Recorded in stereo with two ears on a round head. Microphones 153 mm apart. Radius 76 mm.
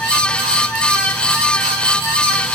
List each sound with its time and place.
Only background noise.